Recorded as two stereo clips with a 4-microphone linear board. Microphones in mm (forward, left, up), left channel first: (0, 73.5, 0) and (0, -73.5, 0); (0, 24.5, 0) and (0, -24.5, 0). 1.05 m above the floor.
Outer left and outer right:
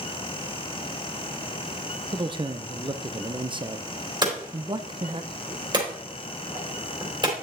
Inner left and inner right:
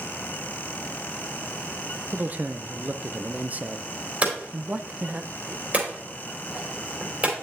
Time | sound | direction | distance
2.1 | a man speaking | 35° right (ahead or behind) | 0.6 m
4.2 | hammering | 30° right (ahead or behind) | 3 m